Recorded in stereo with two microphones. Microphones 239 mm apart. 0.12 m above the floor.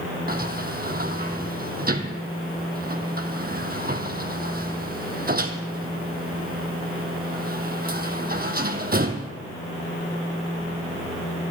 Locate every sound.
0.3 s a sliding door: 40° right (ahead or behind), 1.1 m